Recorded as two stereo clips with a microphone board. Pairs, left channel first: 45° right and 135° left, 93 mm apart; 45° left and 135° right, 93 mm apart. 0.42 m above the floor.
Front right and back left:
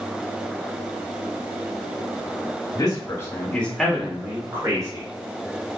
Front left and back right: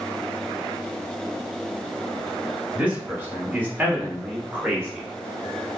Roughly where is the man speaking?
Ahead right.